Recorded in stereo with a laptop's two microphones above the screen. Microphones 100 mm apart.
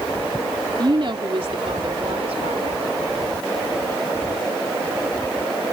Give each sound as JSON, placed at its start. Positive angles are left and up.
{"t": 0.8, "sound": "a woman speaking", "side_deg": -50}